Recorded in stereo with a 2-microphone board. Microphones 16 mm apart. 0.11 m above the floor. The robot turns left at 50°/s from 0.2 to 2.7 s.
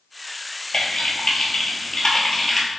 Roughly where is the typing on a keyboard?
Left.